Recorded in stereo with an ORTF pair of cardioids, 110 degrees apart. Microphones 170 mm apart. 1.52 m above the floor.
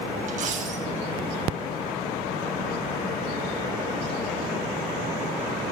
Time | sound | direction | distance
0.3 | a dropped coin | 50° right | 4 m